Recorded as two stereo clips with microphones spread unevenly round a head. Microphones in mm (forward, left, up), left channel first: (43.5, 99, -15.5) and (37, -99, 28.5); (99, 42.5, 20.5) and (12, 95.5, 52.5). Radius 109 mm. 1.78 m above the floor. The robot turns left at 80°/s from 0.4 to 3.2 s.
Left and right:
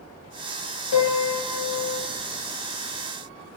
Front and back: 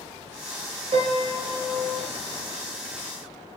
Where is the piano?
125° left, 0.5 m; by 2.1 s 35° left, 0.5 m.